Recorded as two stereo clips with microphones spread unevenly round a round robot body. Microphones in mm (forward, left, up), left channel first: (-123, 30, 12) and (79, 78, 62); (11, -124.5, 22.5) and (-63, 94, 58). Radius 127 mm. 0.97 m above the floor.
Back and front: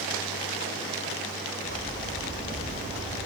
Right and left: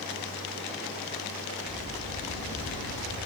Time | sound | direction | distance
1.6 | footsteps | 80° right | 8 m